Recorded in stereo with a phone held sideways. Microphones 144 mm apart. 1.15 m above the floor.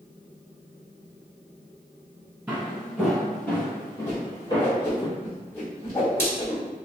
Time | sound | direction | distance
2.5 | footsteps | 10° right (ahead or behind) | 1.4 m
4.1 | a whoosh | 15° left (ahead or behind) | 1.3 m